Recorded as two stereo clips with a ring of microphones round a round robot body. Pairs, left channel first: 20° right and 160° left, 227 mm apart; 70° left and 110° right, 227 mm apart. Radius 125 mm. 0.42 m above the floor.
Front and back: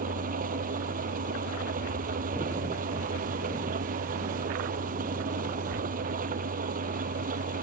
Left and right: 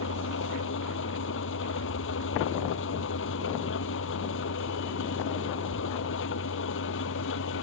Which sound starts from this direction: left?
An engine running, at 0.0 s.